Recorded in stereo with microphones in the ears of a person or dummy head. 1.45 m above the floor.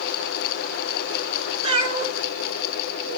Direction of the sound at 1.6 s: 35° right (ahead or behind).